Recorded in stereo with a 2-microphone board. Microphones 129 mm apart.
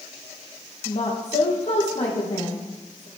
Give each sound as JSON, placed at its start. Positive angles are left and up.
{"t": 0.8, "sound": "a woman speaking", "side_deg": 60, "distance_m": 4.0}